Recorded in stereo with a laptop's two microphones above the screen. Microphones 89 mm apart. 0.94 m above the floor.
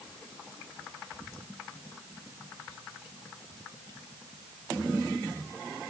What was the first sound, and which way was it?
Only background noise.